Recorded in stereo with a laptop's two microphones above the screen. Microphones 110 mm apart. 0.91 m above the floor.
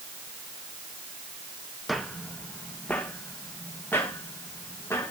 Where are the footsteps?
Centre (ahead or behind), 2 m; by 5.1 s 20° left (ahead or behind), 6.5 m.